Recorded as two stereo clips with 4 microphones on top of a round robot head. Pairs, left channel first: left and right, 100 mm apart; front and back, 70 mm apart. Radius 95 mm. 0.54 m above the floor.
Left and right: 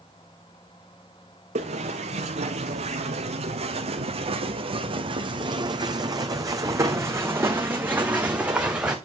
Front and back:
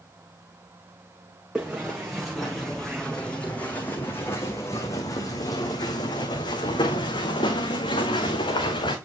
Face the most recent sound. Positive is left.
turn(degrees=-10)